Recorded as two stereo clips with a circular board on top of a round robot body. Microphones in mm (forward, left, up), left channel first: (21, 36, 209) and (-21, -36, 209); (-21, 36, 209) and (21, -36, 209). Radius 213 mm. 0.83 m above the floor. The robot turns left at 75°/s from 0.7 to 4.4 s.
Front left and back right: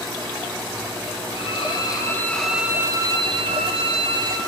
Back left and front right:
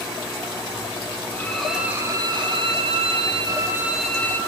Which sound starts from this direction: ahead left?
A violin, at 1.3 s.